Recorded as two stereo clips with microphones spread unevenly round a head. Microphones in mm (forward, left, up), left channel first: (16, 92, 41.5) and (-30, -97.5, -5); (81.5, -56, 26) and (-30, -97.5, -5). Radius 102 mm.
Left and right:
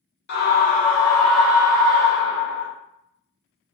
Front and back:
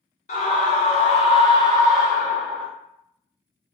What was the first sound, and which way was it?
A scream, 50° left.